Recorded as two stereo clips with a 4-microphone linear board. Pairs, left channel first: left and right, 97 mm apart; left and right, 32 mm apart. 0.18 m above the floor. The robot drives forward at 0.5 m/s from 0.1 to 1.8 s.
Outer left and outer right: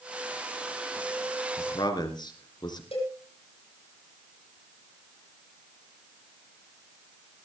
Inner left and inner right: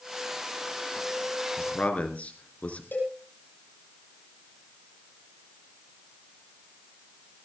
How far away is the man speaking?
About 2.5 m.